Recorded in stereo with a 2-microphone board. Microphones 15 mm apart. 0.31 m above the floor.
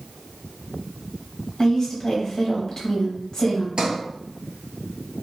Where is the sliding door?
60° right (ahead or behind), 0.9 m.